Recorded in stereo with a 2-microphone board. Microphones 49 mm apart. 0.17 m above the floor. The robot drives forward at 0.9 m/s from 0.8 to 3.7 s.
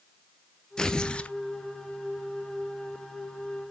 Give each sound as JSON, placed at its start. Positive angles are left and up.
{"t": 0.8, "sound": "tearing paper", "side_deg": 15, "distance_m": 0.9}